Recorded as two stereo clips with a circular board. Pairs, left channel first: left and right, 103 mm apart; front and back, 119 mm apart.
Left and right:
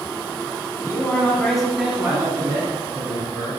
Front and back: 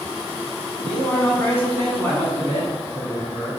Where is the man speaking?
65° left, 1.3 m; by 3.5 s 85° right, 2 m.